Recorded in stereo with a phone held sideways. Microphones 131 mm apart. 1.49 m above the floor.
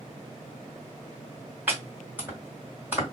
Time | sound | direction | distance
1.7 | chopping | 15° right (ahead or behind) | 1.8 m